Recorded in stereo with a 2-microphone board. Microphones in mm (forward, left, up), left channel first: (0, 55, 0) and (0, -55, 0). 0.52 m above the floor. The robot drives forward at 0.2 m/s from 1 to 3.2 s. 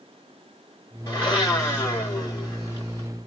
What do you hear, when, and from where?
1.1 s a blender: 30° left (ahead or behind), 1.8 m; by 3.1 s 25° left (ahead or behind), 2 m